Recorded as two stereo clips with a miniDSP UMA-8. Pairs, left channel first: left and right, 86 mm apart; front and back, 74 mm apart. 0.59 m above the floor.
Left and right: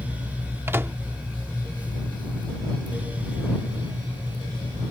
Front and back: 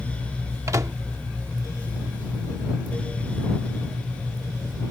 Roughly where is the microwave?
Behind right.